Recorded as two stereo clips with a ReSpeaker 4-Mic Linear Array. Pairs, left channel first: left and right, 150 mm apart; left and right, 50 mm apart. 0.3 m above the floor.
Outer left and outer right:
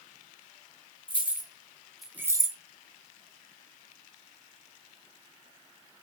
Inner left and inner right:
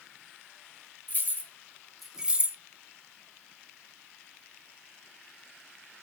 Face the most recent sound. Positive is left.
turn(degrees=-30)  # may be behind; listen again after turning